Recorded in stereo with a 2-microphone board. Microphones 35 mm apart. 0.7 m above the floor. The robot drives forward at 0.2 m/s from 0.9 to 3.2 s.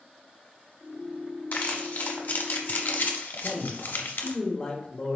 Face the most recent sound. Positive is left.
turn(degrees=25)  # may be behind; listen again after turning